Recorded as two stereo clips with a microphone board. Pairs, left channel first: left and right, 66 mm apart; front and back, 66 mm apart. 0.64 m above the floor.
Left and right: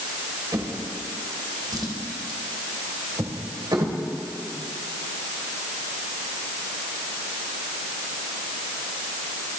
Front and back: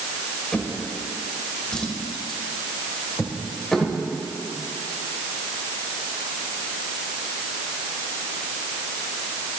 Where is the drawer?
80° right, 1.7 m.